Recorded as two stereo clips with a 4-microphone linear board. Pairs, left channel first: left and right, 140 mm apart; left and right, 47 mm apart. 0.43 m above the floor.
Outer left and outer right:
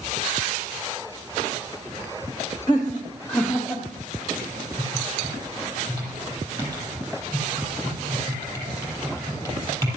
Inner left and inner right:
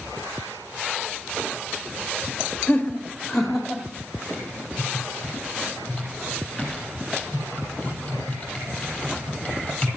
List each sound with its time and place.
2.7 s laughter: 30° left (ahead or behind), 0.9 m; by 3.8 s centre (ahead or behind), 1.7 m
4.3 s typing on a keyboard: 20° left (ahead or behind), 5.5 m